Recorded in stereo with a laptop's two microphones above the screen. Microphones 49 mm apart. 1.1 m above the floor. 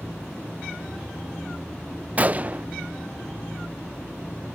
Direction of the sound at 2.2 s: 30° right (ahead or behind).